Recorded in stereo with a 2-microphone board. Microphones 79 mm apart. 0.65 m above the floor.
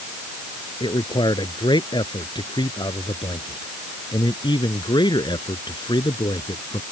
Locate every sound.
0.8 s a man speaking: 75° left (ahead or behind)